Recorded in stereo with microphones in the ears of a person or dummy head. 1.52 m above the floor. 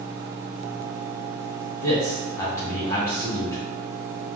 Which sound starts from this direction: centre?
A man speaking, at 1.8 s.